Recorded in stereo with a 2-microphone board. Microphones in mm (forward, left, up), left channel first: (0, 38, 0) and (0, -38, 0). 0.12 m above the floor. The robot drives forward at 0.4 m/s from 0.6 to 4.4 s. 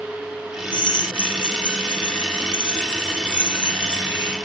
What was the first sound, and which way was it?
A drill, 80° left.